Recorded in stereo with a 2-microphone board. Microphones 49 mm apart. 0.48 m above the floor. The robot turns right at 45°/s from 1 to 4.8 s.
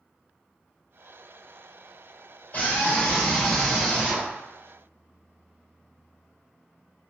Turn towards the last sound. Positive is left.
turn(degrees=-125)